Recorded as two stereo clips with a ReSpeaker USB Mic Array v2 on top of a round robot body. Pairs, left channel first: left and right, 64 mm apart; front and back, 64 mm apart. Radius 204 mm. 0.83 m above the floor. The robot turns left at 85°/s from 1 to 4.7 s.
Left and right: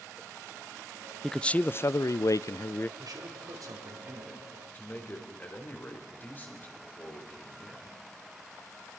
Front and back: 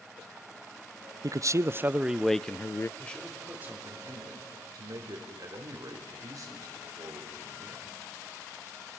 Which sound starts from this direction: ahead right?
A man speaking, at 3.0 s.